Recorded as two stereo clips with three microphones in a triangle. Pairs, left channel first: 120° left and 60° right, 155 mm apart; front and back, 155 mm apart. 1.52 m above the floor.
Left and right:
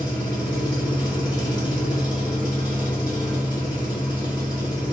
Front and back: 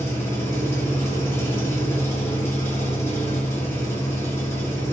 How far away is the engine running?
About 1.4 m.